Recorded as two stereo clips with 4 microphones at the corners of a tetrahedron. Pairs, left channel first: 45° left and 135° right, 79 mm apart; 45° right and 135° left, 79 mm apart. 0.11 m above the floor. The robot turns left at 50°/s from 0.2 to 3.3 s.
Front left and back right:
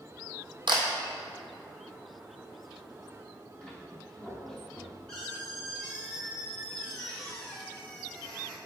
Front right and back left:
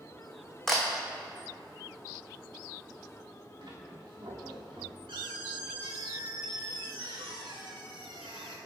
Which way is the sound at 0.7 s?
130° right.